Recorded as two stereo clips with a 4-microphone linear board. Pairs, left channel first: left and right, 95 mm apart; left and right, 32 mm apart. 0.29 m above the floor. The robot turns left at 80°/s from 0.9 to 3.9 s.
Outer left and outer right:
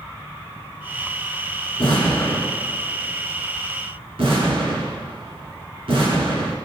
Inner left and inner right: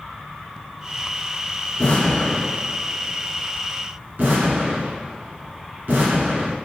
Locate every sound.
1.8 s an explosion: 60° left (ahead or behind), 2 m; by 6.5 s 70° right (ahead or behind), 2 m